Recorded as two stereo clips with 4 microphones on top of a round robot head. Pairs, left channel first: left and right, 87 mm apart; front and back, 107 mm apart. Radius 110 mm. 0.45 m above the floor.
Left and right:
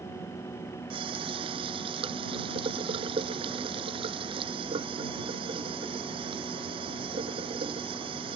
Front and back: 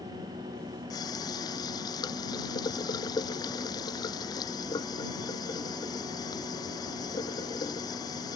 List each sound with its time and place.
0.9 s a running tap: 60° right